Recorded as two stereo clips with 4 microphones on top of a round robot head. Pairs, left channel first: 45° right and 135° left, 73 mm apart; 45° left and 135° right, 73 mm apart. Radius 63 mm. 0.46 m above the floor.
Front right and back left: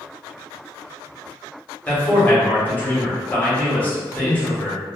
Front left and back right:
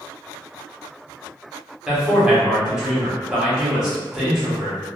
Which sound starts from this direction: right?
A man speaking, at 1.9 s.